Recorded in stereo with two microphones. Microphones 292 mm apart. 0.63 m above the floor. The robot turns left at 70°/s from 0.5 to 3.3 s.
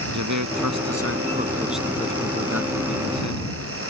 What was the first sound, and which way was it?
A man speaking, 90° right.